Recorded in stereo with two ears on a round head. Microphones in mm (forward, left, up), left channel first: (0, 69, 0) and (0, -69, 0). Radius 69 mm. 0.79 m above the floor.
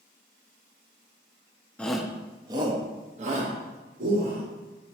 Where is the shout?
10° left (ahead or behind), 0.7 m; by 4.4 s 60° right (ahead or behind), 1.7 m.